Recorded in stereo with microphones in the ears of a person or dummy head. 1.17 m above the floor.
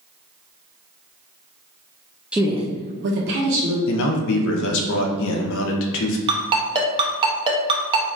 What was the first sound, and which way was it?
A woman speaking, centre (ahead or behind).